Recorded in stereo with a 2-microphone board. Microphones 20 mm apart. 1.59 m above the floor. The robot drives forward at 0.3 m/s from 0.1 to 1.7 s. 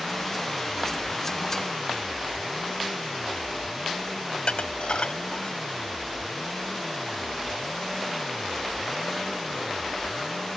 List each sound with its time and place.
4.3 s dishes clattering: 70° left (ahead or behind)